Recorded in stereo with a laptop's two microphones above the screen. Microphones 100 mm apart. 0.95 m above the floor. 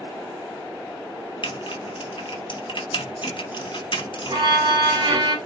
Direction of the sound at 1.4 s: 55° left (ahead or behind).